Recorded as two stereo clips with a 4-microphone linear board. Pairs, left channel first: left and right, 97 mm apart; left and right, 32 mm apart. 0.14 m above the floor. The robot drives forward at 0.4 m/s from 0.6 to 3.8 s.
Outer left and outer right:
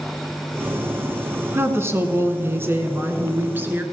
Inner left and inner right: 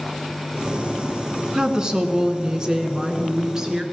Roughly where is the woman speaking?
Right.